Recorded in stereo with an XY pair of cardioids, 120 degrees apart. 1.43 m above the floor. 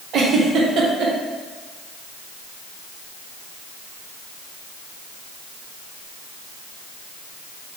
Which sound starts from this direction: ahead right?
A giggle, at 0.1 s.